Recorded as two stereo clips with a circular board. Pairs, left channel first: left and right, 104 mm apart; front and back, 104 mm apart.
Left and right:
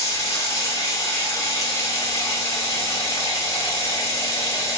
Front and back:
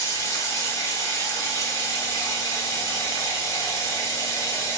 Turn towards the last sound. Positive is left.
turn(degrees=45)